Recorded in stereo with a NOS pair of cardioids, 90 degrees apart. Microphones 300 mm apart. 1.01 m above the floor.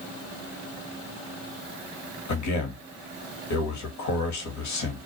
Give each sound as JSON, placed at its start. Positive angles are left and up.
{"t": 2.3, "sound": "a man speaking", "azimuth_deg": 70, "distance_m": 1.2}